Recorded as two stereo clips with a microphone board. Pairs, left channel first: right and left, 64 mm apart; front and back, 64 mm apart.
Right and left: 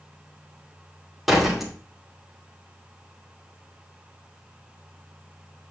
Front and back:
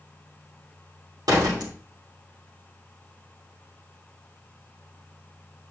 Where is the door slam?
Straight behind, 2.5 m.